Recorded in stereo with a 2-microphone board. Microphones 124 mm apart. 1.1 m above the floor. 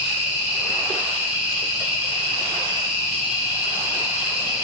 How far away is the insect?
About 1.8 m.